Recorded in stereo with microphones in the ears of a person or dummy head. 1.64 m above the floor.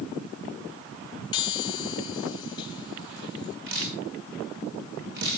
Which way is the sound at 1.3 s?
30° left (ahead or behind).